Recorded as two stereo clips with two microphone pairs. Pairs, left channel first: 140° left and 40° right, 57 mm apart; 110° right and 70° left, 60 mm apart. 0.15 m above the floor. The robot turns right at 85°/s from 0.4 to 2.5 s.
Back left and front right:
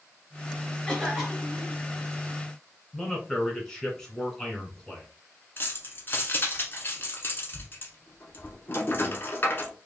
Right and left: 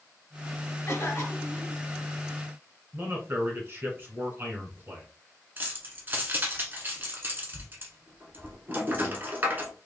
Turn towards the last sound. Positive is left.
turn(degrees=110)